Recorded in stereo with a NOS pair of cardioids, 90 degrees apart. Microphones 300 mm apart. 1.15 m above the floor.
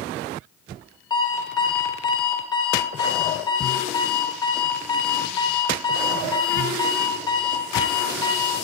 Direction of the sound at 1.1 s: 15° left.